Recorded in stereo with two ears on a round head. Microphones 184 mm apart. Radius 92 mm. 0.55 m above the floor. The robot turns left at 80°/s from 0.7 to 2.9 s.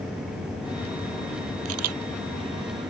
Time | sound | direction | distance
1.6 | a camera shutter | 70° right (ahead or behind) | ?